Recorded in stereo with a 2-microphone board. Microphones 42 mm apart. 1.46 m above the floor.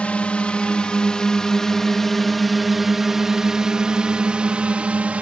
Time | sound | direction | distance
0.0 | a drone | 30° left (ahead or behind) | ?